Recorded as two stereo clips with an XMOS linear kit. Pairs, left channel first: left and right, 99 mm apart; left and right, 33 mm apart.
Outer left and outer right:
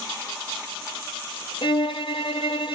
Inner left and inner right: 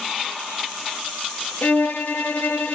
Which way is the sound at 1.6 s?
60° left (ahead or behind).